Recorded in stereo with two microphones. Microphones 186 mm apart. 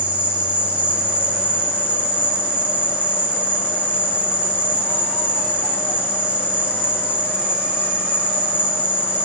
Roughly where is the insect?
Centre.